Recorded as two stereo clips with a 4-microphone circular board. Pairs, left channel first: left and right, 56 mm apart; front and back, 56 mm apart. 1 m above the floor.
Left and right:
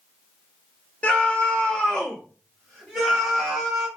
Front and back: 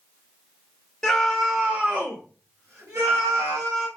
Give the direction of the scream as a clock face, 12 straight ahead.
10 o'clock.